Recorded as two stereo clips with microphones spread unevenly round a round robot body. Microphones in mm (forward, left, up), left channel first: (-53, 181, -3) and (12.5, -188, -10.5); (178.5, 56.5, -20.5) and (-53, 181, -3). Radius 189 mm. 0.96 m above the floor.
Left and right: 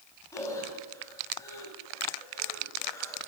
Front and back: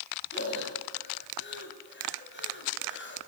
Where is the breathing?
20° left, 5.5 m.